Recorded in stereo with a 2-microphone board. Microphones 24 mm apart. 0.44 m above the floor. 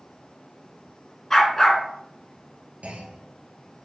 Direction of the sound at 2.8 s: 65° right (ahead or behind).